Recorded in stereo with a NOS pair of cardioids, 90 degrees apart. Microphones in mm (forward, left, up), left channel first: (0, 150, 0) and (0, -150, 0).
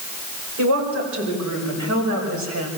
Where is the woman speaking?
70° right, 7 m; by 2.7 s 80° right, 7.5 m.